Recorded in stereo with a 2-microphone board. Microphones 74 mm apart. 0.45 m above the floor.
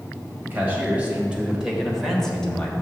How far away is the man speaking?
About 2 m.